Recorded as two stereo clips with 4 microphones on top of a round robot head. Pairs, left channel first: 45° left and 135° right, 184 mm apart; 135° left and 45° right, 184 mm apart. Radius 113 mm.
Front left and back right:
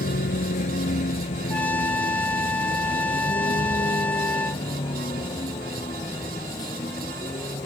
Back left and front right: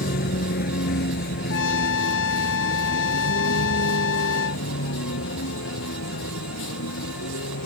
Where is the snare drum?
No snare drum in this recording.